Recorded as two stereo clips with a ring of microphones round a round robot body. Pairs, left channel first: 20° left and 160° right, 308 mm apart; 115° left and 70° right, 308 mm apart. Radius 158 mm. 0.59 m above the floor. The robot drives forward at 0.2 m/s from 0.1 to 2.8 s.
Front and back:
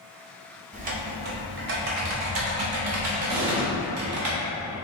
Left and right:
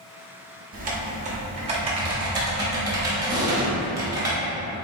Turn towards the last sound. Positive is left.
turn(degrees=-145)